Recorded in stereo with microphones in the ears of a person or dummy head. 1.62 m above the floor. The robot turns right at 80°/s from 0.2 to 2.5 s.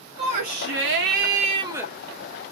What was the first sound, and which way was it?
A shout, 140° right.